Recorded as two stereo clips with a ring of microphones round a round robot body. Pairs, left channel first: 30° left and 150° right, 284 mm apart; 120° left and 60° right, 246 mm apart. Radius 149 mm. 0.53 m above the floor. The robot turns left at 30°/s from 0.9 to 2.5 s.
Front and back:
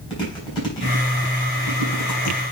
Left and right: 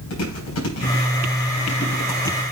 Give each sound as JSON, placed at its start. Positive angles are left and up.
{"t": 0.1, "sound": "chewing", "azimuth_deg": 105, "distance_m": 5.0}